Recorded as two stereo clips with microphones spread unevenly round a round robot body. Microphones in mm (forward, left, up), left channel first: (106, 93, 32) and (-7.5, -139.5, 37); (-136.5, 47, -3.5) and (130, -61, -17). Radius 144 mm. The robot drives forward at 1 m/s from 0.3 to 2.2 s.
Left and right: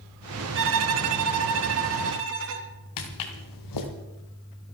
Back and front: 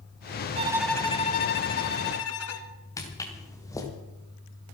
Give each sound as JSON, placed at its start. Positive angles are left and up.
{"t": 0.6, "sound": "a violin", "azimuth_deg": -80, "distance_m": 0.7}
{"t": 3.0, "sound": "footsteps", "azimuth_deg": 80, "distance_m": 3.0}